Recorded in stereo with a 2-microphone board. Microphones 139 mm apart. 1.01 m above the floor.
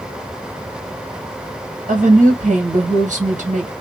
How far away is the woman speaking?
About 1.2 m.